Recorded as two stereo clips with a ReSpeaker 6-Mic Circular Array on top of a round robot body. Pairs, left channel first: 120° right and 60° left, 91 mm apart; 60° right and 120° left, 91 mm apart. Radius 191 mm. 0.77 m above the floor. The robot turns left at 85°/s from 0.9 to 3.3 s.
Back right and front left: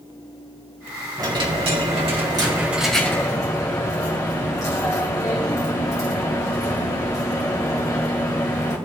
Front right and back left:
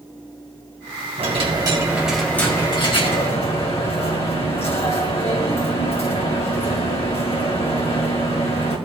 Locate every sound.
1.2 s a dropped coin: 115° left, 2 m; by 8.8 s 65° right, 2 m